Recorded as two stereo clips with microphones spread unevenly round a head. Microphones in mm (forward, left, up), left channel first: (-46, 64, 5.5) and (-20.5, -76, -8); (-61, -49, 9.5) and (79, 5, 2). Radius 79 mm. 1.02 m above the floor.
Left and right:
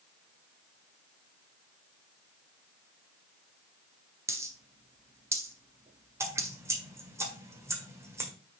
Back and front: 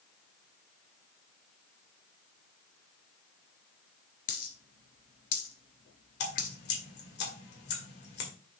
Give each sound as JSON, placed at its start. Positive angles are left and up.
{"t": 4.3, "sound": "a dropped coin", "azimuth_deg": -150, "distance_m": 1.7}
{"t": 6.2, "sound": "dripping", "azimuth_deg": -150, "distance_m": 1.9}